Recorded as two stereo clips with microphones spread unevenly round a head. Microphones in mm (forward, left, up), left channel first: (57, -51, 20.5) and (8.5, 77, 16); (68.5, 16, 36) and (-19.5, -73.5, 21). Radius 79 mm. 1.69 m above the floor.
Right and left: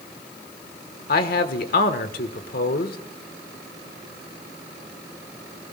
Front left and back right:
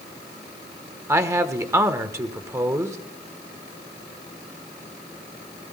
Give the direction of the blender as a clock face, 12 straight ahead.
I don't hear a blender.